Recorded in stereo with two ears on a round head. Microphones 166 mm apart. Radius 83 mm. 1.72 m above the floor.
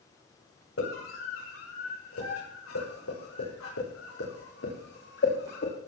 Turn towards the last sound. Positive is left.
turn(degrees=55)  # may be behind; listen again after turning